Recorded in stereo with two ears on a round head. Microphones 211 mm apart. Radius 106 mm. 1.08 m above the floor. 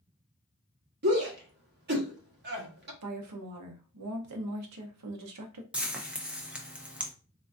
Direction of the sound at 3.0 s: 75° right (ahead or behind).